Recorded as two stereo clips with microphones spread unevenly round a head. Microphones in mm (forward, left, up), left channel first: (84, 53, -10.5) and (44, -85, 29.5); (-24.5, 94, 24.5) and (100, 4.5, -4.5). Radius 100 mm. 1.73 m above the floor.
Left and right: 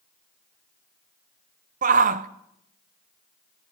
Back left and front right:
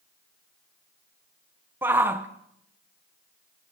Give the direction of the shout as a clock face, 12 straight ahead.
4 o'clock.